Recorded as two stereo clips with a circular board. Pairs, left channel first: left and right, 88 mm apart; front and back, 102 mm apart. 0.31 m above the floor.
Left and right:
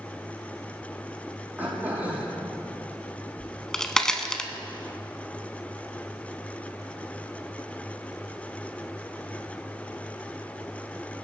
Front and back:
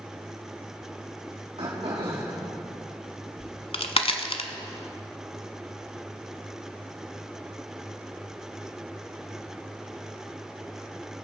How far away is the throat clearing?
About 5 m.